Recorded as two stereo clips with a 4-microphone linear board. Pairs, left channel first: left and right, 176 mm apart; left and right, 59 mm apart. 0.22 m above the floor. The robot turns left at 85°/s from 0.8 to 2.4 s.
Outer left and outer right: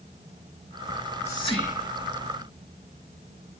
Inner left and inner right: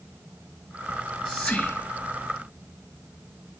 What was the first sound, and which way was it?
Whispering, 15° right (ahead or behind).